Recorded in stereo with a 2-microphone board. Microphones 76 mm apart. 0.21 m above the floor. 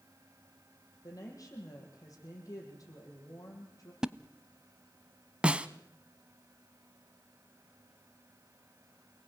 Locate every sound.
1.0 s a woman speaking: 55° left (ahead or behind), 8 m
4.0 s a splash: 10° right (ahead or behind), 0.7 m
5.4 s a snare drum: 15° right (ahead or behind), 0.9 m